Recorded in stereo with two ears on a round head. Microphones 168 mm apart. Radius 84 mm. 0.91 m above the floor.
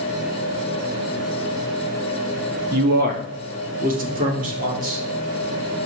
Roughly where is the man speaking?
Right.